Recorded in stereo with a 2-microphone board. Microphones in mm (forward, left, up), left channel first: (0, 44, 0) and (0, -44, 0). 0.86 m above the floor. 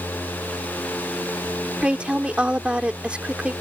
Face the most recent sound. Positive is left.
turn(degrees=-15)  # may be behind; listen again after turning